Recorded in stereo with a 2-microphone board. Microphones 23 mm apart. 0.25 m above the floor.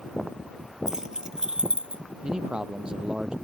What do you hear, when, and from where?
0.9 s keys jangling: 20° right (ahead or behind); by 2.0 s 40° right (ahead or behind)
2.2 s a man speaking: 35° right (ahead or behind)